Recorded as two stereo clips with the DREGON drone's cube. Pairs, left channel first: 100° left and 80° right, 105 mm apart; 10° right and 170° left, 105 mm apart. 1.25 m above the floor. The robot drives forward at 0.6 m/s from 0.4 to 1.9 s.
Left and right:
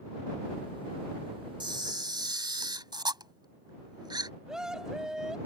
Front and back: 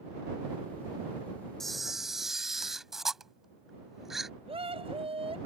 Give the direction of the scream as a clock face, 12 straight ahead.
5 o'clock.